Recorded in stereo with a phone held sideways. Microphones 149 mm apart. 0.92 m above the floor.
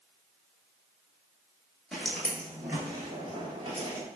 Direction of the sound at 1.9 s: Centre (ahead or behind).